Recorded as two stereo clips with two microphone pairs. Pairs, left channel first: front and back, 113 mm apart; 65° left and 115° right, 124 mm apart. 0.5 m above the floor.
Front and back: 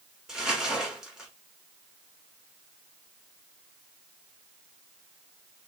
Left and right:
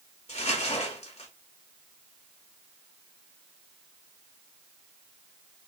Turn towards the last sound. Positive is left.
turn(degrees=95)